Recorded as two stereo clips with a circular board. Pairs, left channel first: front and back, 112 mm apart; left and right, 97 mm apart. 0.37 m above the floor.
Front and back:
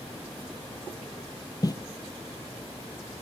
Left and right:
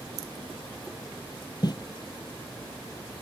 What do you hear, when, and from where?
1.6 s footsteps: 50° left, 0.7 m